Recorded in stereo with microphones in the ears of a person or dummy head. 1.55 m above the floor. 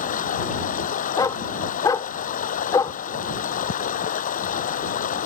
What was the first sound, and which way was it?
Running water, 50° left (ahead or behind).